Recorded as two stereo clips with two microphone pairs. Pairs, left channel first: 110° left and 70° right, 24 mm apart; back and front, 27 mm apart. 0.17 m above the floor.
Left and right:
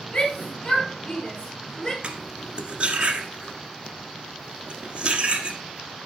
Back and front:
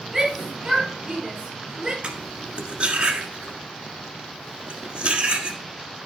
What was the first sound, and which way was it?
A shout, 75° left.